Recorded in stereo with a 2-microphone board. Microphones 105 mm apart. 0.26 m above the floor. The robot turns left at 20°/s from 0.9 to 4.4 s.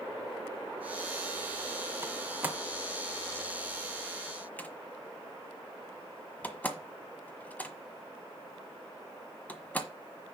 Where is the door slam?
25° right (ahead or behind), 1.2 m; by 9.9 s 15° left (ahead or behind), 1.2 m.